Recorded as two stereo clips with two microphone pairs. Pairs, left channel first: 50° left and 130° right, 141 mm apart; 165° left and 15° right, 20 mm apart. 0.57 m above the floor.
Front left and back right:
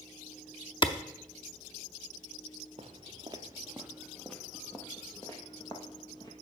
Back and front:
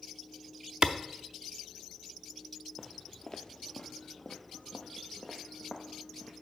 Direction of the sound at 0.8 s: 5° left.